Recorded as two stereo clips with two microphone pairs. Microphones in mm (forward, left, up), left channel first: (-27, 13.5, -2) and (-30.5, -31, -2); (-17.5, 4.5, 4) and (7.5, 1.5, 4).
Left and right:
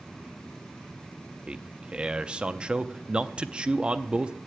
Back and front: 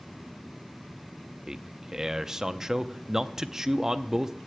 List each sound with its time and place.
1.5 s a man speaking: 60° right, 0.5 m